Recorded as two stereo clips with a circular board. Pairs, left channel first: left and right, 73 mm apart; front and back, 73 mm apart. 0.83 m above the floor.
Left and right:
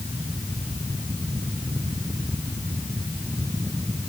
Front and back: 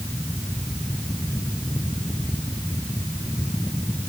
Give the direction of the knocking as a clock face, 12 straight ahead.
I don't hear knocking.